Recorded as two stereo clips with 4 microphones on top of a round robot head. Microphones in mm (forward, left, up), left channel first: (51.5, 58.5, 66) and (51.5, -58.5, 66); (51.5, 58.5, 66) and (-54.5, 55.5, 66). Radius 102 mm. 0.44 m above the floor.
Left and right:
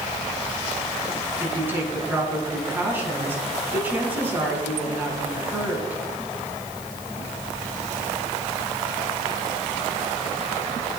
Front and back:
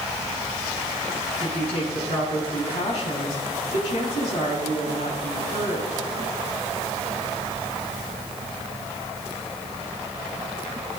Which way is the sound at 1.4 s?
15° right.